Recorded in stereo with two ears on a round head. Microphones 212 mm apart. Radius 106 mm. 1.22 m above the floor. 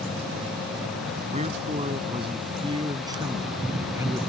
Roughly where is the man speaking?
Right.